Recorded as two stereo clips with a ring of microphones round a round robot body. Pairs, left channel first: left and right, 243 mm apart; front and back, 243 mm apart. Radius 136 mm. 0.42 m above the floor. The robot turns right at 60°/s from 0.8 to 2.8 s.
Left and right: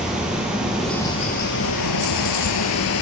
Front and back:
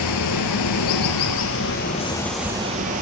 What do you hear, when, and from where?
0.0 s running water: 5° right, 0.8 m; by 3.0 s 115° left, 0.8 m